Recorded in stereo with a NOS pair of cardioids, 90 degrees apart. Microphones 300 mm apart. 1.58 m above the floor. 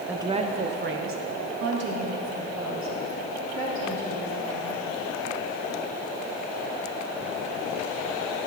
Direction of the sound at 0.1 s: 5° right.